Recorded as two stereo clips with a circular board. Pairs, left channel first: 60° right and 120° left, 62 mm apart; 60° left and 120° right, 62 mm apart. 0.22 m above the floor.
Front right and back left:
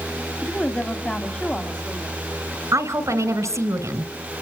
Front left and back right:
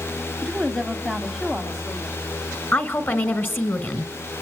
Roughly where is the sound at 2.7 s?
Left.